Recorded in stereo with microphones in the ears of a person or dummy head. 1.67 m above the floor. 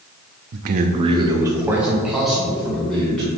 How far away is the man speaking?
About 0.5 m.